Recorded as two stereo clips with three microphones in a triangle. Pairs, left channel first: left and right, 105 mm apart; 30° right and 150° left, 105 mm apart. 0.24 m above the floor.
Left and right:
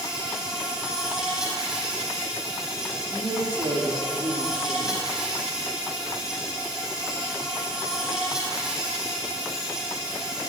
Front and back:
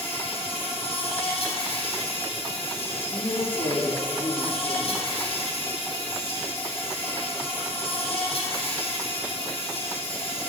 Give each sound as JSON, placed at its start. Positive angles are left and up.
{"t": 0.0, "sound": "an insect", "azimuth_deg": -5, "distance_m": 3.5}
{"t": 3.0, "sound": "a woman speaking", "azimuth_deg": -55, "distance_m": 4.5}